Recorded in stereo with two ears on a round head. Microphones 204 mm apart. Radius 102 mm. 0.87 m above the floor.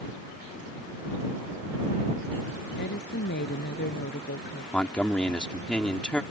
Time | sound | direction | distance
2.8 | a woman speaking | 45° left (ahead or behind) | ?
4.7 | a man speaking | 5° left (ahead or behind) | ?